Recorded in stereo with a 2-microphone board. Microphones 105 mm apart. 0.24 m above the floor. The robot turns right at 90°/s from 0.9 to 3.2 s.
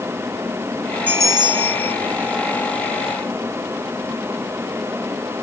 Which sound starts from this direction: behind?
A bell, at 1.1 s.